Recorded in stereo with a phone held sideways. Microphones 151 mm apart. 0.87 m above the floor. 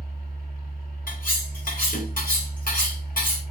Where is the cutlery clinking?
70° left (ahead or behind), 1.6 m.